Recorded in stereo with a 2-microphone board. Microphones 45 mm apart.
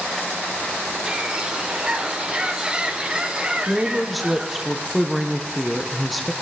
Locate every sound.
1.1 s a bird: 20° right (ahead or behind), 0.8 m
3.7 s a woman speaking: centre (ahead or behind), 1.0 m